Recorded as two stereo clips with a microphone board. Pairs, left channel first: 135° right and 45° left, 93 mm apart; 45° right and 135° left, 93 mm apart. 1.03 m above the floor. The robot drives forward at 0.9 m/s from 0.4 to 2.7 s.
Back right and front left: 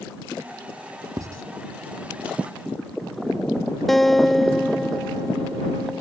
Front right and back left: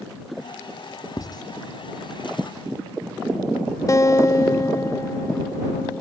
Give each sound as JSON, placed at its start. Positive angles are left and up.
{"t": 1.2, "sound": "writing", "azimuth_deg": -5}
{"t": 3.9, "sound": "a guitar", "azimuth_deg": -50}